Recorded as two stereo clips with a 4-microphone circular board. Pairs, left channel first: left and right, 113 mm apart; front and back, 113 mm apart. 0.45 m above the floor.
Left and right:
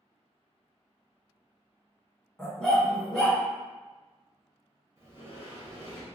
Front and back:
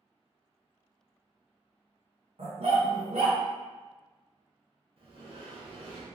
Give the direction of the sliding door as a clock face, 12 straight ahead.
5 o'clock.